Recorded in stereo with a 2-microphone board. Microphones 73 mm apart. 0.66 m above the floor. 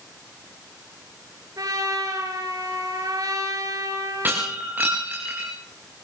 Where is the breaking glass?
25° right (ahead or behind), 8.5 m.